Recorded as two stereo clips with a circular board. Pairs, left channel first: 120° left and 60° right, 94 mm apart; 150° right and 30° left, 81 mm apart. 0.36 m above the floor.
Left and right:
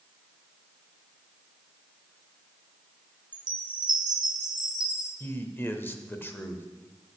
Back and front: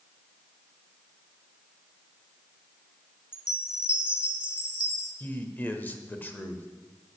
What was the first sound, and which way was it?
A chime, 50° right.